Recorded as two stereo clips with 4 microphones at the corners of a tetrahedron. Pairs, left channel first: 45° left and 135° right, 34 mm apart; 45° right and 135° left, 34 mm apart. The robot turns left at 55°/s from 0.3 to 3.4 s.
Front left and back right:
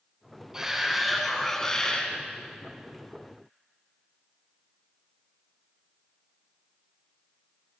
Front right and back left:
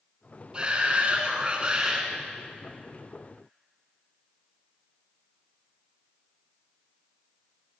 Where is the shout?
165° left, 1.3 m; by 2.1 s 80° left, 1.3 m.